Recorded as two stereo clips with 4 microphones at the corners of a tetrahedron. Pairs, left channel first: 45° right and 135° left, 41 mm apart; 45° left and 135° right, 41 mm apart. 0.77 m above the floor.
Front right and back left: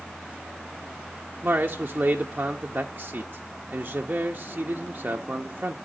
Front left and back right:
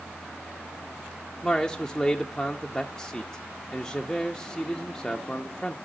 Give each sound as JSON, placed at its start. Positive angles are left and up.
{"t": 1.4, "sound": "a man speaking", "azimuth_deg": 120, "distance_m": 0.5}